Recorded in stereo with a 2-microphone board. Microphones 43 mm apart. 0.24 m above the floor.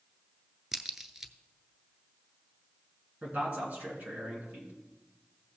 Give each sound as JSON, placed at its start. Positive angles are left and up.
{"t": 0.7, "sound": "a crack", "side_deg": -10, "distance_m": 0.5}
{"t": 3.2, "sound": "a man speaking", "side_deg": -35, "distance_m": 3.0}